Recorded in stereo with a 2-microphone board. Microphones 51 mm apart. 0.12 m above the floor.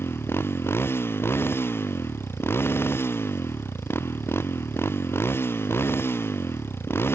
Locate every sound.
0.0 s a motorcycle: 50° left (ahead or behind)